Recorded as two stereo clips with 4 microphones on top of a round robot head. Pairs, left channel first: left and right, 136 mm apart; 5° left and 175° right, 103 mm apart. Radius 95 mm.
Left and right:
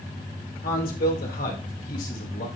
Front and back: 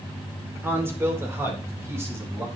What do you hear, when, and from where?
0.6 s a man speaking: 115° left, 2 m; by 2.5 s 120° left, 3.5 m